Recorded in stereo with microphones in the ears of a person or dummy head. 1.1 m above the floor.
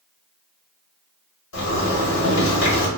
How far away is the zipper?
About 1.3 m.